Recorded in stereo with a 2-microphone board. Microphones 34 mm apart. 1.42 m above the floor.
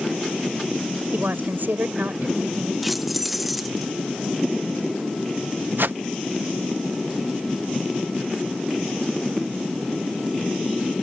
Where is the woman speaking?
70° right (ahead or behind).